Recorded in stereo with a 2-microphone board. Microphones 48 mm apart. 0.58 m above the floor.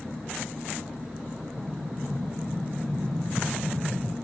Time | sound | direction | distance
1.6 | an explosion | 60° right (ahead or behind) | 0.9 m